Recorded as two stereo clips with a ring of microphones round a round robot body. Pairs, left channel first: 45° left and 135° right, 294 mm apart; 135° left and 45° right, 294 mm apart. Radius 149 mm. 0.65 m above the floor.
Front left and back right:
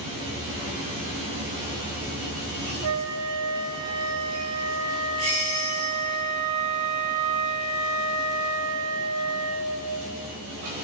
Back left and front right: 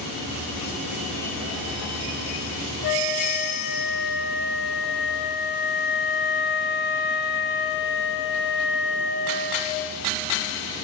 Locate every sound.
2.8 s a flute: 170° right, 2.5 m